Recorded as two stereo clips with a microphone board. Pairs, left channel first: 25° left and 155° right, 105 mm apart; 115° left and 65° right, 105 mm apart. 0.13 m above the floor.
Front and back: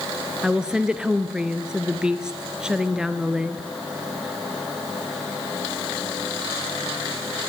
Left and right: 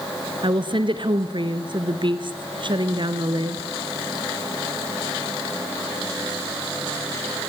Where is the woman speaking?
75° right, 2.0 m.